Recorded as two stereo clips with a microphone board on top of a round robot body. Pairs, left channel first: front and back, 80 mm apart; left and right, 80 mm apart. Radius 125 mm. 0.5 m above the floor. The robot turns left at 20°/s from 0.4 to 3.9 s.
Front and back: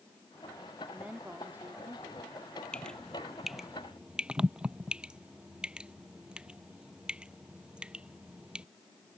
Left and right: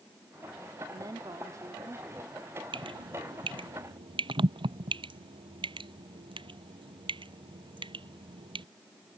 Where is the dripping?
75° right; by 8.7 s 100° right.